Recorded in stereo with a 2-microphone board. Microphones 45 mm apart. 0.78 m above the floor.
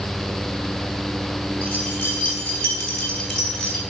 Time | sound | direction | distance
1.6 | keys jangling | 30° left (ahead or behind) | 5.5 m